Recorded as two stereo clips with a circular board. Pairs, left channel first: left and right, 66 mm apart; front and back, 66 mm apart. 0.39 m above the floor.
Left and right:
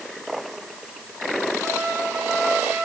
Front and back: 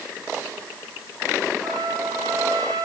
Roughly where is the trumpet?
Behind.